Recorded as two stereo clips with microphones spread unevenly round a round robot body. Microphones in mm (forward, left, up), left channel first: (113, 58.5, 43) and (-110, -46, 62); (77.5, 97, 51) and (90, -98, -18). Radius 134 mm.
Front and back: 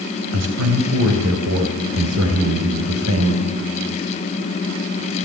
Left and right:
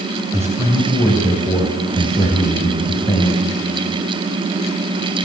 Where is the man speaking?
160° right, 3 m; by 3.4 s 175° left, 3.5 m.